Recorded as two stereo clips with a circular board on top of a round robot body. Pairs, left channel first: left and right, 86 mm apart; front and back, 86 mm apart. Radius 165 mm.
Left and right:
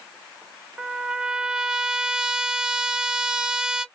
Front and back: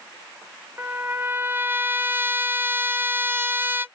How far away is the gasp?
I don't hear a gasp.